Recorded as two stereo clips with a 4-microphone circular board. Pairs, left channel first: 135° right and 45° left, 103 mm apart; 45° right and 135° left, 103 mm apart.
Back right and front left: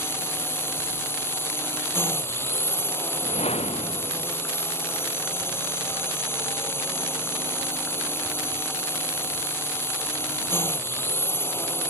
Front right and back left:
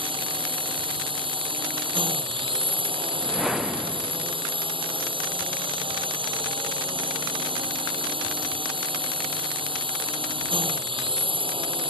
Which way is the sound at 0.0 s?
160° left.